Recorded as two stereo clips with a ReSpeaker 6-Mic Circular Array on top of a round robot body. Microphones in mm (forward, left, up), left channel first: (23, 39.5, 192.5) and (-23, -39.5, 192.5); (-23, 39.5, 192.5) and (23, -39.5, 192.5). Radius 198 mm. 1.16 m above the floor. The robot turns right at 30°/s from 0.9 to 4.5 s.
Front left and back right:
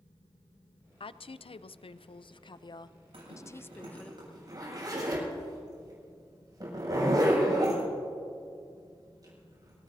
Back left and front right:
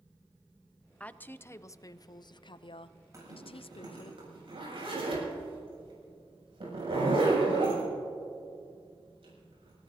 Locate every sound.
1.0 s a woman speaking: 45° left, 0.5 m; by 4.1 s 140° left, 0.5 m
3.1 s a zipper: 115° right, 7.5 m; by 9.9 s 75° right, 7.5 m